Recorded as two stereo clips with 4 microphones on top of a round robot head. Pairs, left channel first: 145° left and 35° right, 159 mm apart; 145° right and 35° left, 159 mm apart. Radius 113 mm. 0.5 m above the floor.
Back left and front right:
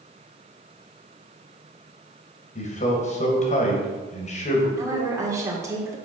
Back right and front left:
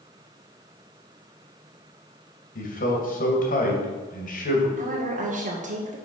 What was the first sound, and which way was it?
A man speaking, 175° right.